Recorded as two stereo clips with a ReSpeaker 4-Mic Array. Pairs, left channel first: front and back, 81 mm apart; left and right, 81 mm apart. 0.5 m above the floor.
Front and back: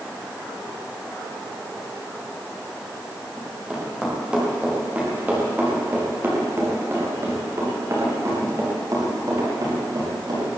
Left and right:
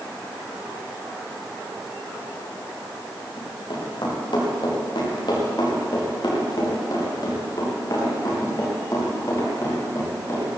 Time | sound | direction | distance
3.4 | running footsteps | 95° left | 9 m